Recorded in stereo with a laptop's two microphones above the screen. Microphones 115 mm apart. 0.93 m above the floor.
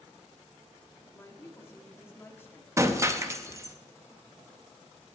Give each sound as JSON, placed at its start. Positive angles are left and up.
{"t": 1.1, "sound": "a woman speaking", "side_deg": 20, "distance_m": 2.0}
{"t": 2.8, "sound": "breaking glass", "side_deg": -25, "distance_m": 0.6}